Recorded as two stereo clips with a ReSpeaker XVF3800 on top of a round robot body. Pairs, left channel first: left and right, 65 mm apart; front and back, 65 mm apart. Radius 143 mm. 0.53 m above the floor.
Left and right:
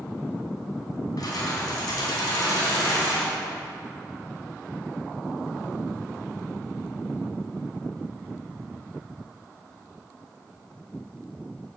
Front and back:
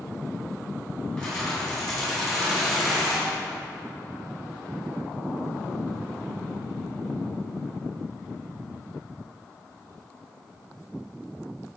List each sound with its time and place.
1.2 s keys jangling: 80° left, 3.5 m; by 3.3 s 95° left, 4 m